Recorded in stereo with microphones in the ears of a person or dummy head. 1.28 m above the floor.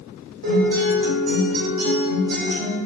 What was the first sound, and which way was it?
A guitar, 75° right (ahead or behind).